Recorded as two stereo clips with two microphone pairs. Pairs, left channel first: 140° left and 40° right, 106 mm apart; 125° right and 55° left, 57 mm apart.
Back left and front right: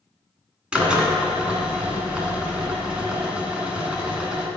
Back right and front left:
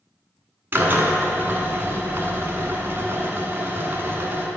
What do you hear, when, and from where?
0.7 s a drill: 30° left, 1.0 m